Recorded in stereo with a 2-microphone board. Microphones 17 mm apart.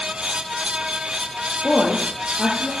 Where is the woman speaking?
50° left (ahead or behind), 3 m.